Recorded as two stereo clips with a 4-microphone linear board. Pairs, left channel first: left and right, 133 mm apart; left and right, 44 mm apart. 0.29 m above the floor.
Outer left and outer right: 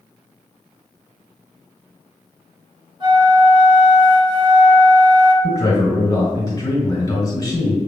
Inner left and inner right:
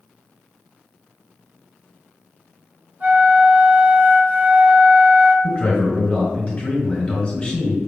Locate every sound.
3.0 s a flute: 40° right (ahead or behind), 0.9 m
5.4 s a man speaking: 25° left (ahead or behind), 1.7 m